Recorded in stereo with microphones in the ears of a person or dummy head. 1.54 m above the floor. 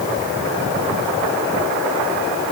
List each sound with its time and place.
Only background noise.